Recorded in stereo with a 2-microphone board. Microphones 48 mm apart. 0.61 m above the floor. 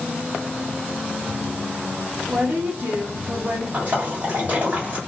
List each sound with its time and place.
2.3 s a woman speaking: 60° right (ahead or behind), 1.0 m
3.7 s a splash: 40° right (ahead or behind), 1.5 m